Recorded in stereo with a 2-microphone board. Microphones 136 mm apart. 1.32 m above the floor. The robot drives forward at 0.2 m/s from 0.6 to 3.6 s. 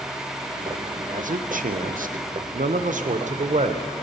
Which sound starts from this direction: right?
A man speaking, at 1.1 s.